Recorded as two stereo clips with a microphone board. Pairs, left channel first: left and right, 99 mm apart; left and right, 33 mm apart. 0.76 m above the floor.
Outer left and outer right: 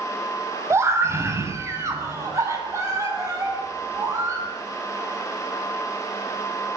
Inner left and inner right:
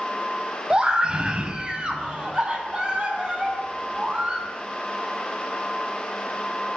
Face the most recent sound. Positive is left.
turn(degrees=-30)  # may be behind; listen again after turning